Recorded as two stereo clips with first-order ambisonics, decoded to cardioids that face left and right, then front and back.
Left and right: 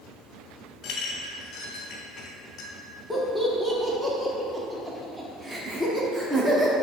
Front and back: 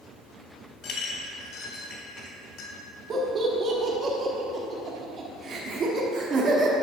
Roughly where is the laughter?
Behind.